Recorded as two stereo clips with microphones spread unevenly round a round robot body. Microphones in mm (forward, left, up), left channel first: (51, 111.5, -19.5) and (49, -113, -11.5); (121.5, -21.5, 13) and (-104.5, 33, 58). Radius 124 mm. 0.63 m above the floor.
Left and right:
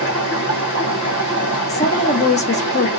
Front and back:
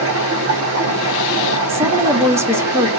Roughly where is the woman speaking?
Left.